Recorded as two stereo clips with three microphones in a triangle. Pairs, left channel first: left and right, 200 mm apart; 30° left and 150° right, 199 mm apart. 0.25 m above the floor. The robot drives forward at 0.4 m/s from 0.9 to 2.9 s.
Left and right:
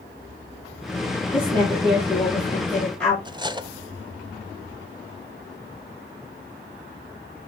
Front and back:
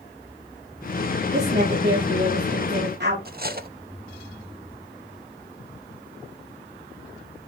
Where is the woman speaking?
175° left, 8 m.